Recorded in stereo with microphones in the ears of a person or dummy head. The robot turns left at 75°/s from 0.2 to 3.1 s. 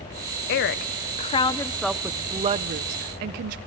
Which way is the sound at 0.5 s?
100° left.